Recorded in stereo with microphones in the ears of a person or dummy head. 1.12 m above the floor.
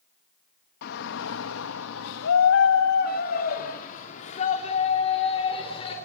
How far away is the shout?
About 1.2 m.